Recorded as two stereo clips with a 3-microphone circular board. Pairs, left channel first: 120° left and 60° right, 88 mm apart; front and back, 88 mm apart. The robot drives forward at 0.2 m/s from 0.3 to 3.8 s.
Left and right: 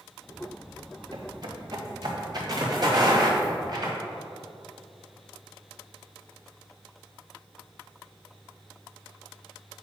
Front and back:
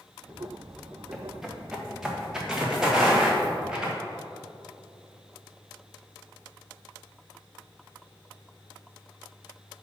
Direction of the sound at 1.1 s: 95° right.